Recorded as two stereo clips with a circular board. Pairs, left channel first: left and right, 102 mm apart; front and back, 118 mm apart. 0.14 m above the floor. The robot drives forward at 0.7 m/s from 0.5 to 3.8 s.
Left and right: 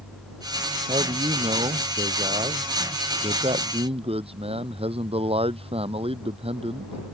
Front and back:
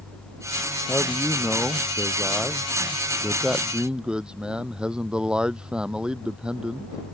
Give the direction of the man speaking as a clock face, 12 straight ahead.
3 o'clock.